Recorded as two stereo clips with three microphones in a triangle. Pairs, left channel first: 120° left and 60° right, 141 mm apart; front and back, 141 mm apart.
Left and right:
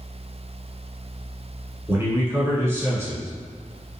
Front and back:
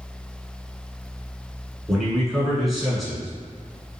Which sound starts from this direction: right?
A man speaking, at 1.9 s.